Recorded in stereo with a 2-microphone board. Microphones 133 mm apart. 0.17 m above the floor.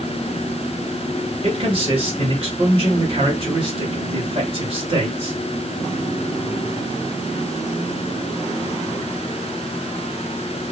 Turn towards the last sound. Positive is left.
turn(degrees=-55)  # may be behind; listen again after turning